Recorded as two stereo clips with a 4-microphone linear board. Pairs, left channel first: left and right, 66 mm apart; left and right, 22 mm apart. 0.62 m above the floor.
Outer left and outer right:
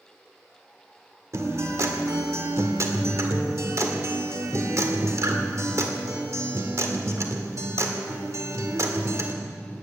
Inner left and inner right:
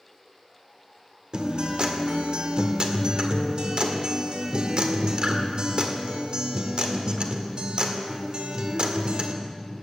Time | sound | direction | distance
1.3 | a guitar | 55° right (ahead or behind) | 1.8 m